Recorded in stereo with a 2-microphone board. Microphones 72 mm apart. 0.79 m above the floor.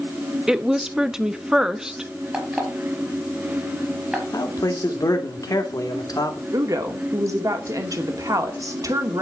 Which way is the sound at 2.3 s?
15° right (ahead or behind).